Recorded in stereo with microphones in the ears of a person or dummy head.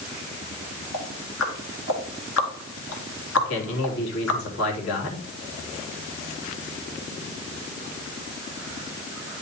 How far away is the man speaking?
About 3 m.